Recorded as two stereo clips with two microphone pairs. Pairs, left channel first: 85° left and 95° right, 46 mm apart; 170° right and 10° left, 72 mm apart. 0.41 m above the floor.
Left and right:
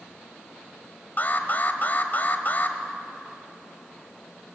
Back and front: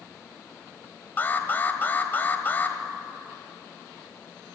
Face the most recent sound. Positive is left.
turn(degrees=130)